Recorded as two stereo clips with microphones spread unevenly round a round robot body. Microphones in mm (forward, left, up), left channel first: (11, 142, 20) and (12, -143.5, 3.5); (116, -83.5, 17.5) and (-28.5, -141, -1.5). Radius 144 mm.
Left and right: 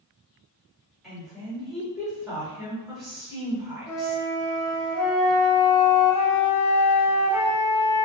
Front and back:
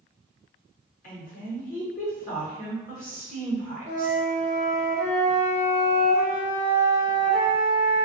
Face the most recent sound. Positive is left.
turn(degrees=60)